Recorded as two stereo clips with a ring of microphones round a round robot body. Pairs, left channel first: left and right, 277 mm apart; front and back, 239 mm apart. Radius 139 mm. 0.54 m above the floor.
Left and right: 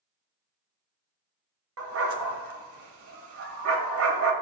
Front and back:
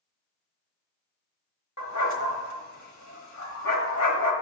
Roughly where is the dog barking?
Ahead right.